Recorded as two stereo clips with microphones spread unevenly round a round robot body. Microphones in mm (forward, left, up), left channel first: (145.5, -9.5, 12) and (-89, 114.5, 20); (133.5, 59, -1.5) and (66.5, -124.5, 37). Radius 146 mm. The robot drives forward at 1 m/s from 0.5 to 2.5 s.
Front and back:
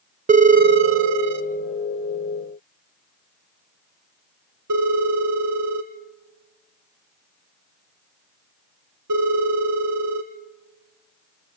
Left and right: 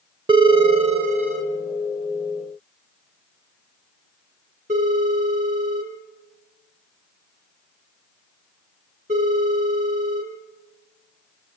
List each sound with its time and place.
0.3 s a phone ringing: 175° right, 0.6 m; by 10.3 s straight behind, 2.5 m